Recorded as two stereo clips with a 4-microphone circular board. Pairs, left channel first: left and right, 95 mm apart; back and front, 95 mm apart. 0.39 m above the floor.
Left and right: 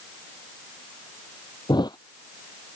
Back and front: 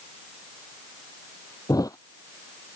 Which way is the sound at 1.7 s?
130° left.